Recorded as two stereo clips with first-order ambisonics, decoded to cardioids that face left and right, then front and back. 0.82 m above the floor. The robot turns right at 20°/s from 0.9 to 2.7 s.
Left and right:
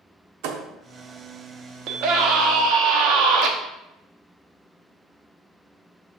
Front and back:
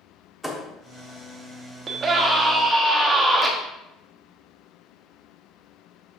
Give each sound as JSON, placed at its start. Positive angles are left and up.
{"t": 0.4, "sound": "a thud", "azimuth_deg": -90, "distance_m": 0.8}
{"t": 1.9, "sound": "a scream", "azimuth_deg": -120, "distance_m": 1.2}